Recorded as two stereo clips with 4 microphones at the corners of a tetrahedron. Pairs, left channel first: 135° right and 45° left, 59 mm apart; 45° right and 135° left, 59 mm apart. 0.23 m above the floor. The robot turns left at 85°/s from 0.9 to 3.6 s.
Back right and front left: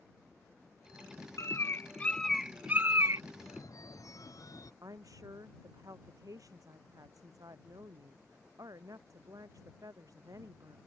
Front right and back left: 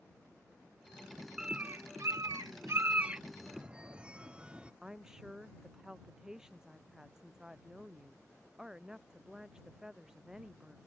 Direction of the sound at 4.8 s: 55° left.